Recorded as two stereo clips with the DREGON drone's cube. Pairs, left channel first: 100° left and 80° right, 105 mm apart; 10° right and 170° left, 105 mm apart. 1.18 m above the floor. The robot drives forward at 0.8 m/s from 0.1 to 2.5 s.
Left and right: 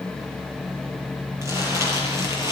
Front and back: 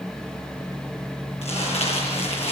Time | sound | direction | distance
1.4 | crumpling | 15° right | 8 m